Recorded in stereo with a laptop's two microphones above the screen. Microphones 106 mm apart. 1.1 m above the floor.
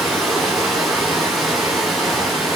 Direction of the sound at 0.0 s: Centre (ahead or behind).